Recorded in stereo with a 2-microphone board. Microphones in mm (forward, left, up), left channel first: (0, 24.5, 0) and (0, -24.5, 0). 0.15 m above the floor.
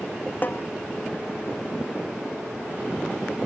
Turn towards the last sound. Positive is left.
turn(degrees=40)  # may be behind; listen again after turning